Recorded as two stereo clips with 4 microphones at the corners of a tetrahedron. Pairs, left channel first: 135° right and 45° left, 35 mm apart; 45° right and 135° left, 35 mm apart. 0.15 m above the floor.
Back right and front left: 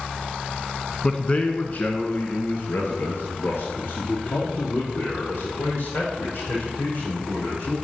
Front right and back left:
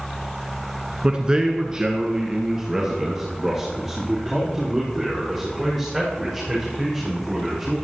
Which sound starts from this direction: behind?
A man speaking, at 1.0 s.